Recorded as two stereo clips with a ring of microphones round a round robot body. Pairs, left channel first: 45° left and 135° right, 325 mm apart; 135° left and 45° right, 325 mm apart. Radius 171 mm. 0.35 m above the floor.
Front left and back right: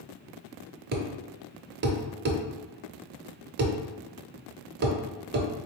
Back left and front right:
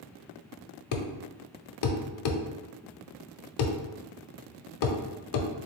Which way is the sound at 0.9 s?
165° left.